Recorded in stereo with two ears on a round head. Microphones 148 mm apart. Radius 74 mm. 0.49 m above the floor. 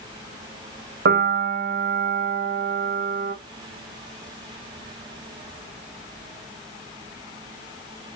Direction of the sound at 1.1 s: 65° right (ahead or behind).